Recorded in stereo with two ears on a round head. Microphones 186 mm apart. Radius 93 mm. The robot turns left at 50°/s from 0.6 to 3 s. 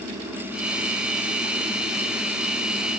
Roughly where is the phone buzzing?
No phone buzzing in this recording.